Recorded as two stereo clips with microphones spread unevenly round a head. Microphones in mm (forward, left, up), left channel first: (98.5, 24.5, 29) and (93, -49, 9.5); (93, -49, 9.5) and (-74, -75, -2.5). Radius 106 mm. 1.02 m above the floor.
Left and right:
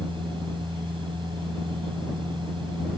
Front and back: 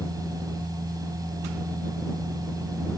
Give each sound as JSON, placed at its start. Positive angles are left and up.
{"t": 0.0, "sound": "a machine running", "azimuth_deg": -100}